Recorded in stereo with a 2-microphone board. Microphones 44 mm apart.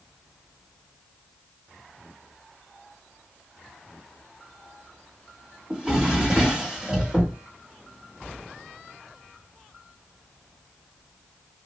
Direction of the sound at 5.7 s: 20° right (ahead or behind).